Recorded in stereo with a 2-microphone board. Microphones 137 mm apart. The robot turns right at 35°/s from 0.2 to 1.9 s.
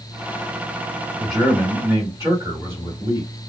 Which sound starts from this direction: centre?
A man speaking, at 1.2 s.